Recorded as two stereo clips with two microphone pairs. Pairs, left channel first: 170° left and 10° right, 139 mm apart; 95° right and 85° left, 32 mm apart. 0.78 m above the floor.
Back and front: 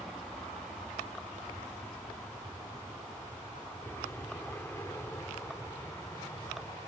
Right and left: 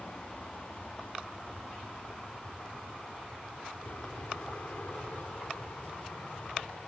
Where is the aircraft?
100° right; by 6.9 s 125° right.